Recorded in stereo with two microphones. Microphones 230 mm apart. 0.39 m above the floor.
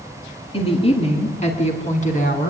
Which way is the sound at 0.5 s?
25° left (ahead or behind).